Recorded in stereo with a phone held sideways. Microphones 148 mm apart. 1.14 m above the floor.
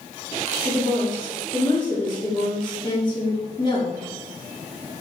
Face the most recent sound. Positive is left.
turn(degrees=30)  # may be behind; listen again after turning